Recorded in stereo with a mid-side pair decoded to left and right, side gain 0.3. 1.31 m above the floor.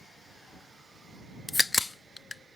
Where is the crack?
25° left.